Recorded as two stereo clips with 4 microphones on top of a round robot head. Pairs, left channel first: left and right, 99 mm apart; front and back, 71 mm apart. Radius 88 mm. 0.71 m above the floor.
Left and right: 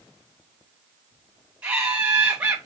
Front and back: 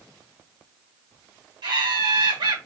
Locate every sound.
1.6 s laughter: 170° right, 2.5 m